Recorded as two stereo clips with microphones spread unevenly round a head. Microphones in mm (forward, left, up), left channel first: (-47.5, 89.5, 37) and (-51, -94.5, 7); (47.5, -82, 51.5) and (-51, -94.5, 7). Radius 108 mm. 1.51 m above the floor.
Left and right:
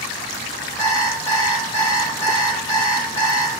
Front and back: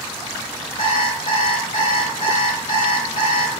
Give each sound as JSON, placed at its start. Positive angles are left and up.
{"t": 0.8, "sound": "an alarm clock", "azimuth_deg": 15, "distance_m": 2.5}